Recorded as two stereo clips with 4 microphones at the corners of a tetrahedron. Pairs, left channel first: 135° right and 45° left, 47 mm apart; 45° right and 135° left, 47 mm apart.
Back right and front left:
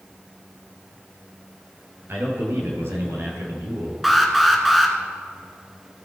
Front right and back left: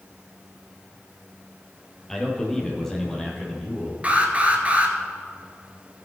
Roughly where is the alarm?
Behind left.